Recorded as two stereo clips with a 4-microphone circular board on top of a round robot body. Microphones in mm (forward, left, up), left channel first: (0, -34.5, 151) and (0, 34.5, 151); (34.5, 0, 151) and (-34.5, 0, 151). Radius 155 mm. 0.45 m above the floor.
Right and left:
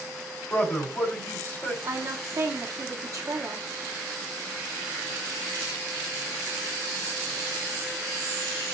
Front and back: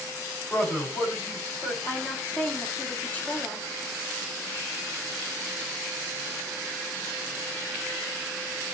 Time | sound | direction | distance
0.5 | a man speaking | 45° right | 2 m
1.8 | a woman speaking | 65° left | 1.1 m